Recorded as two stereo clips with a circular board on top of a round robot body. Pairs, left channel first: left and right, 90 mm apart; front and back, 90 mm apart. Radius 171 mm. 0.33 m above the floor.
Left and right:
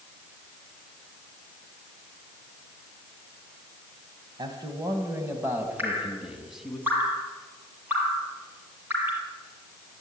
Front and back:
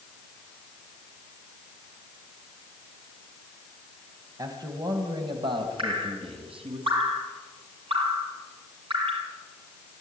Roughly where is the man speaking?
Behind right.